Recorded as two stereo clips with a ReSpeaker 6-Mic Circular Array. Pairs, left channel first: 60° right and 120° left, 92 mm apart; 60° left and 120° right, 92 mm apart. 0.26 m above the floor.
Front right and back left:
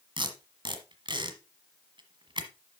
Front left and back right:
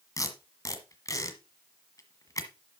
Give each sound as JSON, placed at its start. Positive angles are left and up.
{"t": 0.2, "sound": "tape being pulled", "azimuth_deg": 105, "distance_m": 1.4}